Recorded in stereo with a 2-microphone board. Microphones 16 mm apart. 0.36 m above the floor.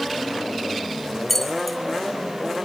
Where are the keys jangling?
5° left (ahead or behind), 1.7 m.